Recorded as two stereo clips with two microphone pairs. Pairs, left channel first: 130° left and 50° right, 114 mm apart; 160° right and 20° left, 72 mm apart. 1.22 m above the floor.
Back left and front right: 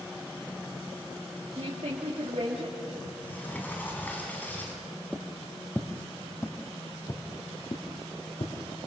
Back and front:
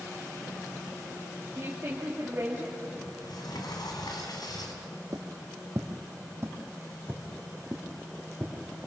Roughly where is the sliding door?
Behind right.